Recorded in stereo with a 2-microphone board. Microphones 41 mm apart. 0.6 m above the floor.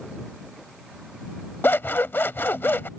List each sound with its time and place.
1.6 s scissors: 70° left (ahead or behind)